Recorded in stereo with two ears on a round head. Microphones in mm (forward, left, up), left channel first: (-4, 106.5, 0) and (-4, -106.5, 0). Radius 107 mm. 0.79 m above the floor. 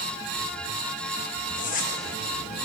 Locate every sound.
1.6 s a zipper: 35° left (ahead or behind), 0.9 m